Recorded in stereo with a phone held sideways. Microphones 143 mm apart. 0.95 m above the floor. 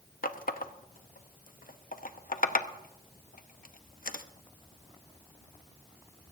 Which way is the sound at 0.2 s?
80° left.